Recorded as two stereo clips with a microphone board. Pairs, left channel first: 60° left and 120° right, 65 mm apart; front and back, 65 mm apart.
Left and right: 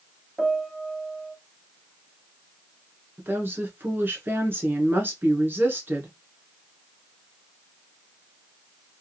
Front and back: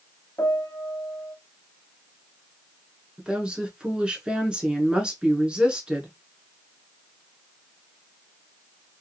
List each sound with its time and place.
0.4 s a piano: 40° right, 0.9 m
3.2 s a woman speaking: 115° right, 1.2 m